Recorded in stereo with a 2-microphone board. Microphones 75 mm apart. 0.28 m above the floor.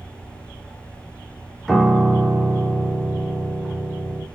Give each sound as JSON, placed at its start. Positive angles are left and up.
{"t": 1.7, "sound": "a piano", "side_deg": 0, "distance_m": 0.6}